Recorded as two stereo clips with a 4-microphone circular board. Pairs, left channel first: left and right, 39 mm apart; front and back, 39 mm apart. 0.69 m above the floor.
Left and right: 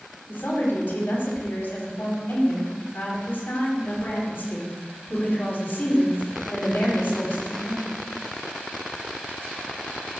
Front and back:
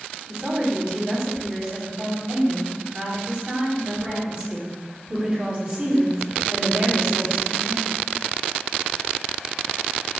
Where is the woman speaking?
130° left, 4.5 m.